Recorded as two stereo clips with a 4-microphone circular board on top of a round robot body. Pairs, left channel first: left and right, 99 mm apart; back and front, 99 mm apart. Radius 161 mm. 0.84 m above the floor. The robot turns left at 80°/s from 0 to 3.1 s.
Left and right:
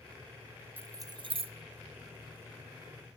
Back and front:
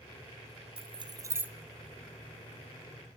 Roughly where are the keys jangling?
Ahead.